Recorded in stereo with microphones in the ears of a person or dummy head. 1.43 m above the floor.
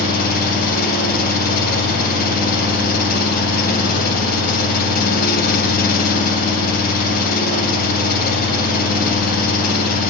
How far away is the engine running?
About 2 m.